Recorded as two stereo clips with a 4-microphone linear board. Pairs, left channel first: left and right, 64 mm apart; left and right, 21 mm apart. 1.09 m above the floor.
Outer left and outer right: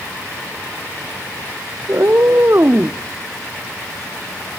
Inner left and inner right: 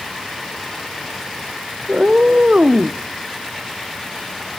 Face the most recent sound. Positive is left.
turn(degrees=-25)  # may be behind; listen again after turning